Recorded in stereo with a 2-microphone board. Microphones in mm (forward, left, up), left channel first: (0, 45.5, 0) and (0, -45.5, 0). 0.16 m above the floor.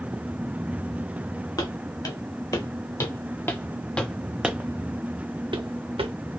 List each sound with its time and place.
1.6 s footsteps: 45° left (ahead or behind), 1.8 m; by 6.1 s 75° right (ahead or behind), 0.9 m